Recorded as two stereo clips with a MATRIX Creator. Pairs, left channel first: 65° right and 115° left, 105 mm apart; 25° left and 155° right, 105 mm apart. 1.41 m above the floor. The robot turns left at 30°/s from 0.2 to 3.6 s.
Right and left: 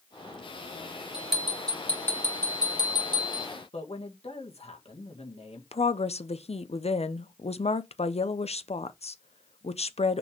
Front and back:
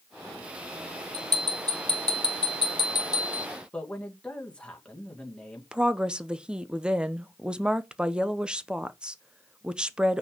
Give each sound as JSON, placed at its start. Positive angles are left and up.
{"t": 1.1, "sound": "a bell", "azimuth_deg": 30, "distance_m": 3.0}
{"t": 3.7, "sound": "a man speaking", "azimuth_deg": -55, "distance_m": 1.8}
{"t": 5.7, "sound": "a woman speaking", "azimuth_deg": -75, "distance_m": 0.6}